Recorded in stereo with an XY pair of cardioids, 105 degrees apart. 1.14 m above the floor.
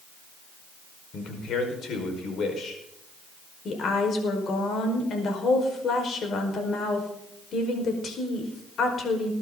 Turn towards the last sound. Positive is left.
turn(degrees=55)